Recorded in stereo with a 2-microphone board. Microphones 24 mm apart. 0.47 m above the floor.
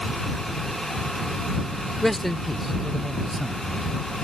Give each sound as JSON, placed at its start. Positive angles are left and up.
{"t": 2.0, "sound": "a man speaking", "side_deg": 15}